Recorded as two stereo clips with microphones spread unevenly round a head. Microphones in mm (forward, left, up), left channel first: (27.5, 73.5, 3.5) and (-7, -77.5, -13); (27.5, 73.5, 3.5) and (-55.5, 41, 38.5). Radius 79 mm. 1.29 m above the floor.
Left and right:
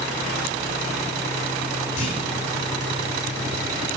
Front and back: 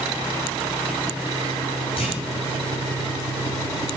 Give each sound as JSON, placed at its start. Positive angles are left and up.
{"t": 2.0, "sound": "a clunk", "azimuth_deg": 30, "distance_m": 4.5}